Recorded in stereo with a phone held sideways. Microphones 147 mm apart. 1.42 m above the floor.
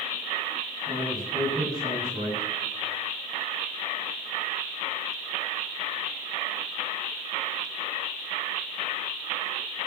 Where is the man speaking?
25° right (ahead or behind), 8 m.